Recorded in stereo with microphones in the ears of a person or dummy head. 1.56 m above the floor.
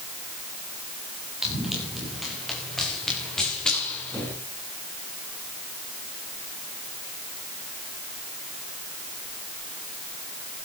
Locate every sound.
1.4 s running footsteps: 5° right (ahead or behind), 8.5 m; by 4.3 s 5° left (ahead or behind), 8.5 m